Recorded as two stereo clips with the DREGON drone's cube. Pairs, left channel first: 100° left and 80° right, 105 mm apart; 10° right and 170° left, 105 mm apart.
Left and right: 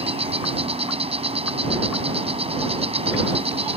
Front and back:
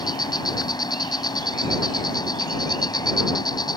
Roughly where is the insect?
Ahead right.